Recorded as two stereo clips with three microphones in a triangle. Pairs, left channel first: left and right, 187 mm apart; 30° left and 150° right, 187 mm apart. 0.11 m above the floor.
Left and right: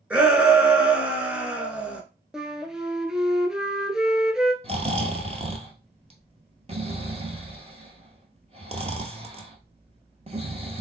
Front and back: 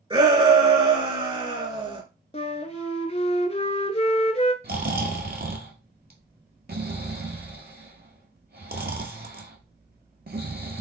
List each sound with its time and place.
0.1 s a shout: 165° right, 1.3 m
2.3 s a flute: 5° right, 0.6 m
4.6 s snoring: 140° right, 0.9 m